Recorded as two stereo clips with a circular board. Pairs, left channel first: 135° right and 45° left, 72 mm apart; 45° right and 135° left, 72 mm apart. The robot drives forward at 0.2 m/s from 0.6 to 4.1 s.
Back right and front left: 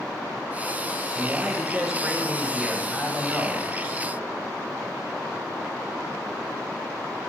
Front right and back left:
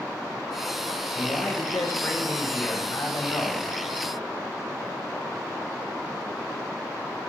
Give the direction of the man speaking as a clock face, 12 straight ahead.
1 o'clock.